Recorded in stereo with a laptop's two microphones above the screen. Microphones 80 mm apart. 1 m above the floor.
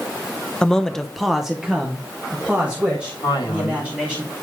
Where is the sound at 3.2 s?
70° left (ahead or behind), 2.5 m.